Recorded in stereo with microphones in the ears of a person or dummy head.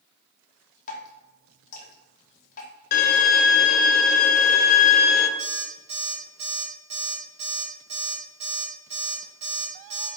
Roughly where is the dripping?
Left.